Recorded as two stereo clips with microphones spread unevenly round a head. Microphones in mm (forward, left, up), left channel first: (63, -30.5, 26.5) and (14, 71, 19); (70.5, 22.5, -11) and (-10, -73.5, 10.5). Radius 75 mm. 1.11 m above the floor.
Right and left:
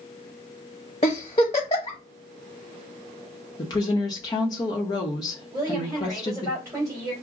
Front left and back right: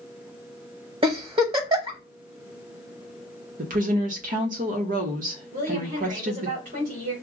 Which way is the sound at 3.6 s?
120° right.